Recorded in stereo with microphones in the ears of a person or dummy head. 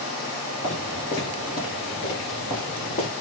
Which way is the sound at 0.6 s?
20° left (ahead or behind).